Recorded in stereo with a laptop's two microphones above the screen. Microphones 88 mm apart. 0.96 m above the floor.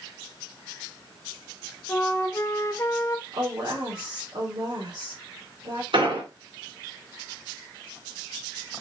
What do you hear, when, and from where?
1.9 s a flute: 35° left (ahead or behind), 0.6 m
3.3 s a woman speaking: 60° right (ahead or behind), 2.5 m
5.9 s an explosion: 80° right, 2.5 m